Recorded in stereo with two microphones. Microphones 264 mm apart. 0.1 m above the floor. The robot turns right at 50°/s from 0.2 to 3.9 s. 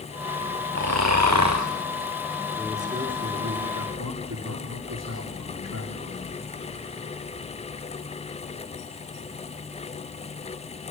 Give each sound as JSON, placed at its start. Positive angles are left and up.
{"t": 0.8, "sound": "snoring", "azimuth_deg": -120, "distance_m": 4.0}
{"t": 2.5, "sound": "a man speaking", "azimuth_deg": 180, "distance_m": 8.0}